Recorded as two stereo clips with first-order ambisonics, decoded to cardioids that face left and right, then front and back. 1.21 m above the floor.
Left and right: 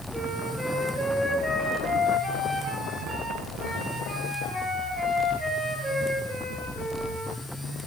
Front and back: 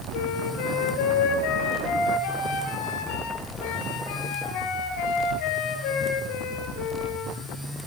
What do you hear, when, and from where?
0.1 s a flute: 5° right, 6 m